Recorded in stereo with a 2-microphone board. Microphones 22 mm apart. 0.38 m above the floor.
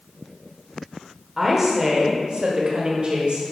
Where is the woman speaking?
5° right (ahead or behind), 1.1 m; by 3.4 s 55° right (ahead or behind), 1.9 m.